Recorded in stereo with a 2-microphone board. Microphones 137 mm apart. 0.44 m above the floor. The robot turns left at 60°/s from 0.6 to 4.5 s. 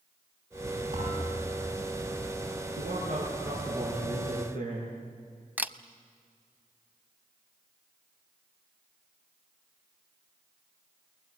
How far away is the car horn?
No car horn in this recording.